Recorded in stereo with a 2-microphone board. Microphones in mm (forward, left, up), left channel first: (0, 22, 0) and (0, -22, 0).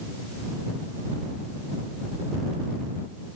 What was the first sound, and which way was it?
Only background noise.